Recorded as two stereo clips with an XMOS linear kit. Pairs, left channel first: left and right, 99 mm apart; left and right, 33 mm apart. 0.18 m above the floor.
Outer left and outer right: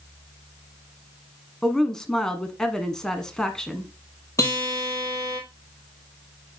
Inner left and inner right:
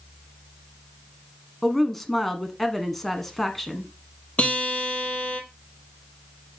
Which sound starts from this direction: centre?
A woman speaking, at 1.6 s.